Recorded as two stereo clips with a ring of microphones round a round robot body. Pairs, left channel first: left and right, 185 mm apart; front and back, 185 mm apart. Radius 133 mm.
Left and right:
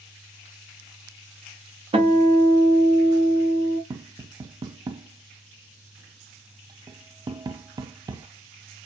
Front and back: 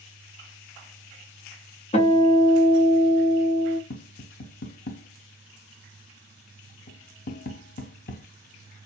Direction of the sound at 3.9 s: 20° right.